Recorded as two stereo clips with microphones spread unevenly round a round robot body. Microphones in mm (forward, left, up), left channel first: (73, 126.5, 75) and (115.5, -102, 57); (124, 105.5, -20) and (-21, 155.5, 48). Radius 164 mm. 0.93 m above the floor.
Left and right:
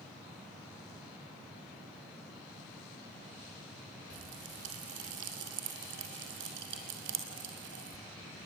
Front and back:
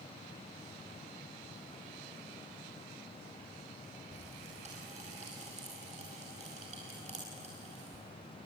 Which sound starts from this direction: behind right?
A pop, at 4.1 s.